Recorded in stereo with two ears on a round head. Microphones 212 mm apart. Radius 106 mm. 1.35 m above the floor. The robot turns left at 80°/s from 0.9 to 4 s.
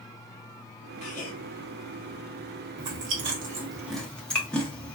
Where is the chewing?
70° right (ahead or behind), 1.0 m; by 5.0 s 5° left (ahead or behind), 1.0 m.